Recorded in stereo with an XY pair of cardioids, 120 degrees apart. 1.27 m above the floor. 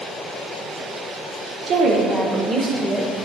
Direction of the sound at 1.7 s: 65° right.